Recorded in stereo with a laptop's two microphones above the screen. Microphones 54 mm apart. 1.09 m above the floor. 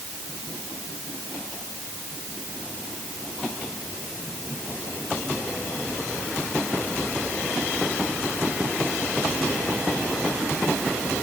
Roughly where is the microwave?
No microwave in this recording.